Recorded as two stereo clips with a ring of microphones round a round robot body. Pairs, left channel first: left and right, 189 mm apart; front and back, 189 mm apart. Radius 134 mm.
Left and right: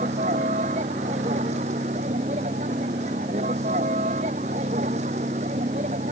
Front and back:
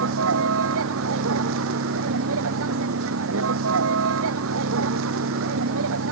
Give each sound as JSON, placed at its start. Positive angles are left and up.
{"t": 0.0, "sound": "a vehicle", "azimuth_deg": -155}